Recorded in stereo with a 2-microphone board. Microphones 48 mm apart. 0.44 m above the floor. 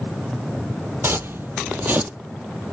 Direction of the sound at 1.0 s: 50° right (ahead or behind).